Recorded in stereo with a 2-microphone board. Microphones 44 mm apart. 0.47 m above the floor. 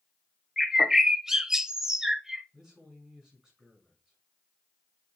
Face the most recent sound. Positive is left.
turn(degrees=-20)  # may be behind; listen again after turning